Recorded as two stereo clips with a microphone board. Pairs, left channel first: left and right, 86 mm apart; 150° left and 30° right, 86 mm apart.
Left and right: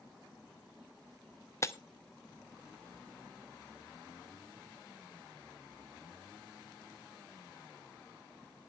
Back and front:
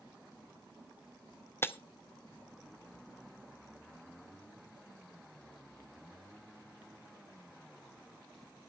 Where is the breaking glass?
110° left, 0.7 m.